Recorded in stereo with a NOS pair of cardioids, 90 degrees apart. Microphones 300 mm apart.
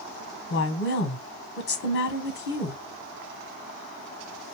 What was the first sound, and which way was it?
A woman speaking, 35° left.